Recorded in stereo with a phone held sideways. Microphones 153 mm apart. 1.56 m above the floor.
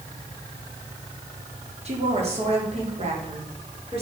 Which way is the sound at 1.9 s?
45° right (ahead or behind).